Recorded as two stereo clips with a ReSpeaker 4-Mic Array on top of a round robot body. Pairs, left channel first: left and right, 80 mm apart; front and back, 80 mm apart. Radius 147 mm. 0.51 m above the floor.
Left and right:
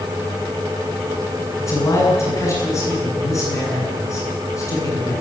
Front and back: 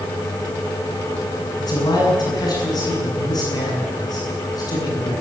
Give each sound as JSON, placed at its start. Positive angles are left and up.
{"t": 1.6, "sound": "a man speaking", "azimuth_deg": 40, "distance_m": 9.0}